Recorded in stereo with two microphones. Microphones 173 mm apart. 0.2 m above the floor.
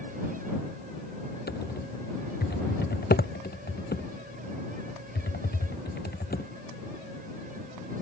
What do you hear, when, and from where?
1.5 s typing on a keyboard: 70° left (ahead or behind)